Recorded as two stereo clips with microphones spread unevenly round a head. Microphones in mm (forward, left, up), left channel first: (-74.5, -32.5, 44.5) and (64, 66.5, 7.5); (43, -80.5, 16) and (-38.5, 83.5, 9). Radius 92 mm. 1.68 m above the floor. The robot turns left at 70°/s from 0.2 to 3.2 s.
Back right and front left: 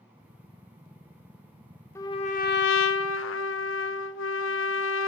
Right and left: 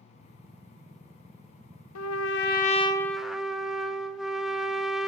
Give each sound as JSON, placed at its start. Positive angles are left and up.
{"t": 1.9, "sound": "a trumpet", "azimuth_deg": -70, "distance_m": 0.7}